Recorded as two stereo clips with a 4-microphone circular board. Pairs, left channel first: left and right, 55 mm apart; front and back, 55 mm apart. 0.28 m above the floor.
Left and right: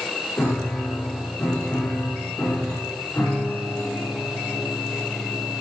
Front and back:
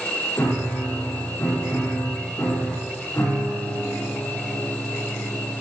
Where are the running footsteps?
I don't hear running footsteps.